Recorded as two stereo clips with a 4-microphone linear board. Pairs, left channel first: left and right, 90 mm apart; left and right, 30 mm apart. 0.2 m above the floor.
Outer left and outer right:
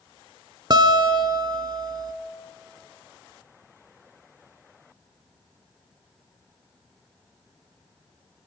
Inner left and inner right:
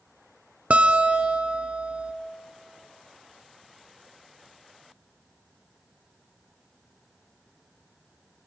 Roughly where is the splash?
No splash in this recording.